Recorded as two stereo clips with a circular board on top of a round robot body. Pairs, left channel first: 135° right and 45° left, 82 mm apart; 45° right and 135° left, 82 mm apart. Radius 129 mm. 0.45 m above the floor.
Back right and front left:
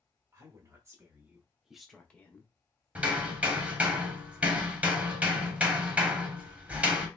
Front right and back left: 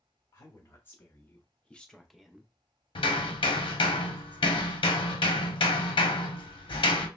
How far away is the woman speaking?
About 1.1 m.